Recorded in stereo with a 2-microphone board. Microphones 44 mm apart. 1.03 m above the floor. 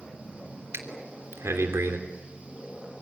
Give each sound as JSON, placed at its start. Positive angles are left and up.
{"t": 0.7, "sound": "breathing", "side_deg": -70, "distance_m": 3.0}